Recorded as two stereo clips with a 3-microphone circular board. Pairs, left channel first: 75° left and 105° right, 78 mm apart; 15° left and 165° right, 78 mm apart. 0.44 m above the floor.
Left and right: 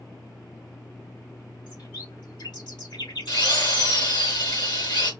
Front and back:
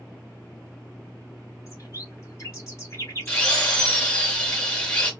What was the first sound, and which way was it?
A bird, 65° left.